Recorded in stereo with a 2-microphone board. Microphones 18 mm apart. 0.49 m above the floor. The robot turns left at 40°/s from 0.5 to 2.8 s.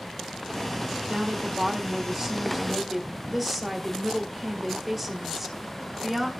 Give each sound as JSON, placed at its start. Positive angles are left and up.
{"t": 1.1, "sound": "a woman speaking", "azimuth_deg": -115, "distance_m": 1.9}